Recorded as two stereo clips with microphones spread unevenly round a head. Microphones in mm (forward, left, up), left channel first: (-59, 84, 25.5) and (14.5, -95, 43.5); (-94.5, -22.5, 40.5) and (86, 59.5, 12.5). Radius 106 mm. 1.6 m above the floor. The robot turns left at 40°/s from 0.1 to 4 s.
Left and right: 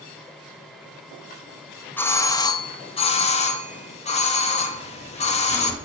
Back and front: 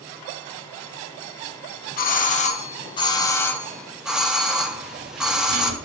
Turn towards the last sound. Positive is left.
turn(degrees=30)